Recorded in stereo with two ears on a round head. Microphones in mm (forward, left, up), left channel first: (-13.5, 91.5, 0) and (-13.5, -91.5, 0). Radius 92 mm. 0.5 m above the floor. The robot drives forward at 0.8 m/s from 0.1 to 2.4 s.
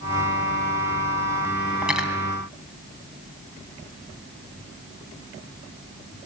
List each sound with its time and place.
1.8 s cutlery clinking: 5° right (ahead or behind), 3 m